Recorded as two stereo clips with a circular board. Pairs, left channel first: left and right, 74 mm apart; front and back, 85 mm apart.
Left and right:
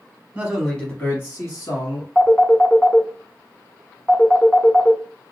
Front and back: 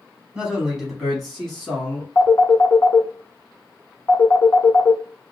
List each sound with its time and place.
0.3 s a man speaking: 120° right, 1.0 m; by 2.0 s 80° left, 1.9 m
2.1 s a phone ringing: 25° left, 0.8 m